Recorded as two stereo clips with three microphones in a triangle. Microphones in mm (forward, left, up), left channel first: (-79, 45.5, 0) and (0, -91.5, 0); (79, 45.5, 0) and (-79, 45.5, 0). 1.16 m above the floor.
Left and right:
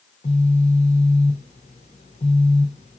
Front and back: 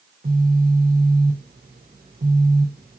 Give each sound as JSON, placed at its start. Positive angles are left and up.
{"t": 0.2, "sound": "a phone buzzing", "azimuth_deg": 165, "distance_m": 3.5}